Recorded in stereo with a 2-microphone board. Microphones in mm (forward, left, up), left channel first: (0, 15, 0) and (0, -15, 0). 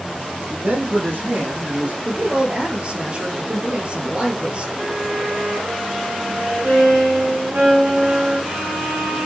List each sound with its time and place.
0.5 s a man speaking: 80° right, 5.5 m; by 1.9 s 70° right (ahead or behind), 6 m
2.0 s a woman speaking: 35° right (ahead or behind), 3 m
4.8 s a violin: 80° right, 5.5 m